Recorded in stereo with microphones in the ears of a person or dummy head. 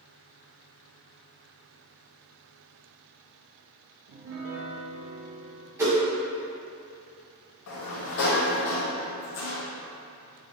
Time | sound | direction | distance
4.1 | a piano | 60° right (ahead or behind) | 0.7 m
5.8 | a whoosh | 20° right (ahead or behind) | 1.7 m
7.7 | a sliding door | 65° left (ahead or behind) | 0.8 m